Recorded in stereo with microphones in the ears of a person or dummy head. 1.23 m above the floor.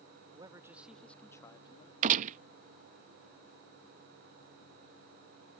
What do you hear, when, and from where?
0.3 s a man speaking: 25° right (ahead or behind); by 1.9 s 30° left (ahead or behind)
2.0 s a gunshot: 40° right (ahead or behind)